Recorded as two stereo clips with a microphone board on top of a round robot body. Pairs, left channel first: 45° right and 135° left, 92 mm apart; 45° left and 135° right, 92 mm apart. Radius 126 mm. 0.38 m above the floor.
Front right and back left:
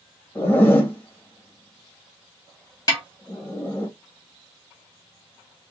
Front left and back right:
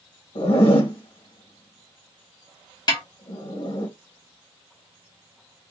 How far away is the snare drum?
About 1.8 m.